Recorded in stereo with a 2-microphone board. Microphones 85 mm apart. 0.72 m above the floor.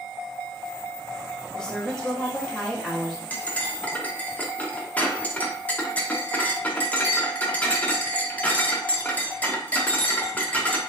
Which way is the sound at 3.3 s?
20° left (ahead or behind).